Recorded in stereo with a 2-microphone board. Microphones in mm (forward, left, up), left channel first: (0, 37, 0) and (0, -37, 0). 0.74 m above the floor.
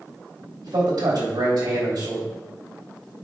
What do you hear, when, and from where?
0.6 s a man speaking: 75° right (ahead or behind), 2.5 m